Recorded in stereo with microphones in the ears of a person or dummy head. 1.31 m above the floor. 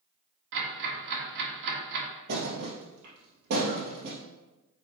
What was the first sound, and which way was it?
Ticking, 75° right (ahead or behind).